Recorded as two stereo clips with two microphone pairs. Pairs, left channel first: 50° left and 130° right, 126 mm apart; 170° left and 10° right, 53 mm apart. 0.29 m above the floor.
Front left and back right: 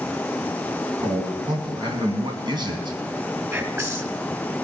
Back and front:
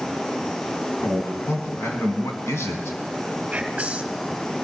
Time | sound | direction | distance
1.0 | a man speaking | straight behind | 2 m
3.5 | whispering | 70° right | 1.6 m